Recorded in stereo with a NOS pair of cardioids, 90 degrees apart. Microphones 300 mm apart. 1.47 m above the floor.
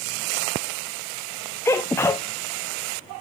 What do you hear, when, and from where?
1.6 s a sneeze: 10° left, 0.7 m